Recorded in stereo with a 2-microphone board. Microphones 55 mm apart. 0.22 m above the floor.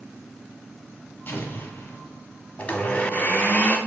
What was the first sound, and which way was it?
An explosion, 40° left (ahead or behind).